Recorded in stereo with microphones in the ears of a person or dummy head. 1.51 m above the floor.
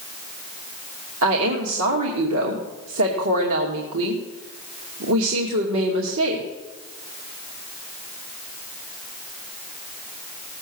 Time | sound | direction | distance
1.2 | a woman speaking | 70° right (ahead or behind) | 2.5 m